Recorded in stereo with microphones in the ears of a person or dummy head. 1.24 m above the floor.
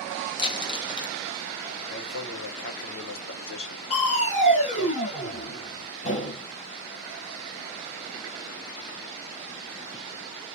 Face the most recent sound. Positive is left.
turn(degrees=35)  # may be behind; listen again after turning